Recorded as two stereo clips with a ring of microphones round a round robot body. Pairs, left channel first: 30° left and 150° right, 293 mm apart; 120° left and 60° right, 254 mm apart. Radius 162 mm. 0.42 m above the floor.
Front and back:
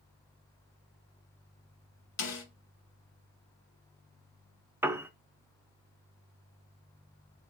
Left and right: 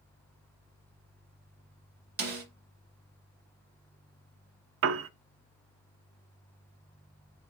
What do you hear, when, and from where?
2.2 s a snare drum: 10° right, 1.9 m
4.8 s a piano: 70° right, 0.5 m